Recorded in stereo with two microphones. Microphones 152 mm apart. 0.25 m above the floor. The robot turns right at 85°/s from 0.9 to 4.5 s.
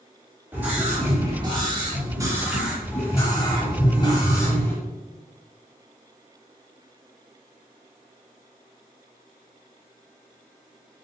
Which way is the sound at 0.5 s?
155° right.